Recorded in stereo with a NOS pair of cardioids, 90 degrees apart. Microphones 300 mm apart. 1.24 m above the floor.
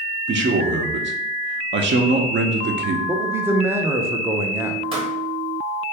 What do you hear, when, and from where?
0.3 s a man speaking: 40° right, 0.7 m
3.1 s a man speaking: 10° right, 0.6 m
4.9 s a pop: 20° right, 1.1 m